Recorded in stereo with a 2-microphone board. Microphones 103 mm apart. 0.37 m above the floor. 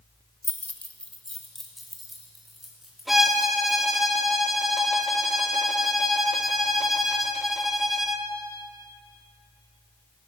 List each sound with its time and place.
0.4 s keys jangling: 25° left (ahead or behind), 0.7 m; by 4.0 s 5° right (ahead or behind), 4.5 m
3.1 s a violin: centre (ahead or behind), 0.9 m